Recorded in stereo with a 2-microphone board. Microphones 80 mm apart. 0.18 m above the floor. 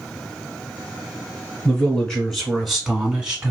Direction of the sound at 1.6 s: 15° left (ahead or behind).